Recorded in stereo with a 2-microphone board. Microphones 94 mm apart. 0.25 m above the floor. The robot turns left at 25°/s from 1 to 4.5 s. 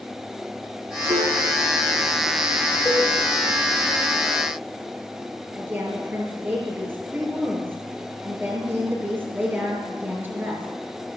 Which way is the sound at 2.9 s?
30° left (ahead or behind).